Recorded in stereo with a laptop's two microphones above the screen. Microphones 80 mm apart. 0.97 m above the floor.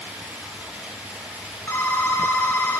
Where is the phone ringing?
30° left (ahead or behind), 1.1 m.